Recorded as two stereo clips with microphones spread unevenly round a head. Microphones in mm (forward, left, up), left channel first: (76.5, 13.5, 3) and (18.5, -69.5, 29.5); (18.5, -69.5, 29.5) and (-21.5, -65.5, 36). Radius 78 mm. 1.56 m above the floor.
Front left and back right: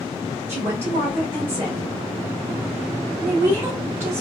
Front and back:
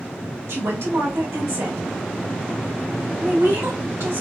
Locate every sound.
0.5 s a woman speaking: 160° left, 1.2 m